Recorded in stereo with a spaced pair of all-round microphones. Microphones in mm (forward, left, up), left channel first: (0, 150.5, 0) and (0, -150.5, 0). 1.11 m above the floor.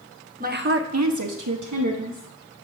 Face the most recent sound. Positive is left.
turn(degrees=-65)  # may be behind; listen again after turning